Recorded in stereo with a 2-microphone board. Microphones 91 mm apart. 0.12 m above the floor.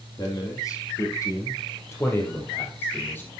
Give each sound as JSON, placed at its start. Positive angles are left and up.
{"t": 0.2, "sound": "a man speaking", "side_deg": 40, "distance_m": 4.5}